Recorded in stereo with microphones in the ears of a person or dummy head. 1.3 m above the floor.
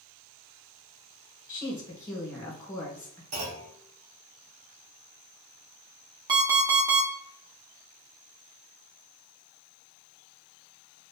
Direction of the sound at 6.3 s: 20° right (ahead or behind).